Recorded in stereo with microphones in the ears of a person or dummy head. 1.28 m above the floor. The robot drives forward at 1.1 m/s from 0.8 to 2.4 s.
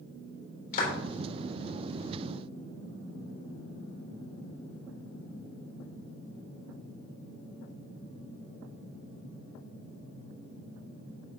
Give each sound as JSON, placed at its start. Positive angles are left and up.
{"t": 0.7, "sound": "a clap", "side_deg": 50, "distance_m": 3.5}